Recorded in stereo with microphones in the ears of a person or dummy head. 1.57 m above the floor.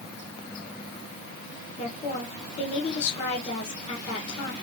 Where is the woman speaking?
35° left (ahead or behind), 2 m.